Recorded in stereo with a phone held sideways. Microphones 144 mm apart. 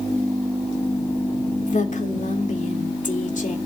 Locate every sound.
1.6 s a woman speaking: 60° left (ahead or behind), 2.5 m